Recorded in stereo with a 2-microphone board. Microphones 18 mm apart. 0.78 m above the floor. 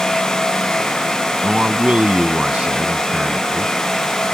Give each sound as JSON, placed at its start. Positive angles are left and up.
{"t": 1.4, "sound": "a man speaking", "side_deg": -85}